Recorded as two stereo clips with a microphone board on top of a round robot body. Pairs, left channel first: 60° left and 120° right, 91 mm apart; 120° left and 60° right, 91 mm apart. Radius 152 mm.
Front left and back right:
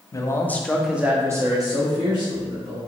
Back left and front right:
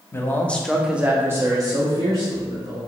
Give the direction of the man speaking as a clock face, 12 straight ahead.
9 o'clock.